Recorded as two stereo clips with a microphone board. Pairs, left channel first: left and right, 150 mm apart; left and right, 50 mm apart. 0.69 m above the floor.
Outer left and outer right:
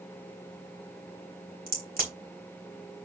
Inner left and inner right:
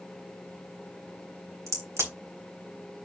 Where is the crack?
75° right (ahead or behind), 3 m.